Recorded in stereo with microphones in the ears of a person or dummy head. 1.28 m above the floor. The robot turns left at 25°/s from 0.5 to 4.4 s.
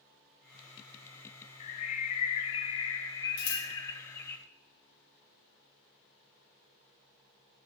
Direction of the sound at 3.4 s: 75° left (ahead or behind).